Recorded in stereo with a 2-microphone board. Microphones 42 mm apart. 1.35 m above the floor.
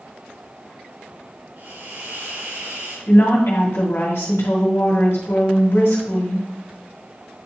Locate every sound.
1.6 s a hiss: 70° right (ahead or behind), 3.5 m
3.1 s a woman speaking: 75° left (ahead or behind), 2.5 m